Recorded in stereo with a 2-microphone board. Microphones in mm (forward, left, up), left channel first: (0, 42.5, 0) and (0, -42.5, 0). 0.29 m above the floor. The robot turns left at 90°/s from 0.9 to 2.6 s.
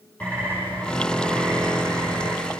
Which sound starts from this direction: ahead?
A bird, at 0.2 s.